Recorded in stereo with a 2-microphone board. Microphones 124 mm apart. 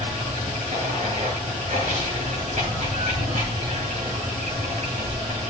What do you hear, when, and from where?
0.0 s running water: 70° right (ahead or behind), 8 m